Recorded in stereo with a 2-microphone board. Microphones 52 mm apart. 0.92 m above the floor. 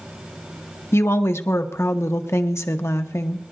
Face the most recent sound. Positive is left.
turn(degrees=60)  # may be behind; listen again after turning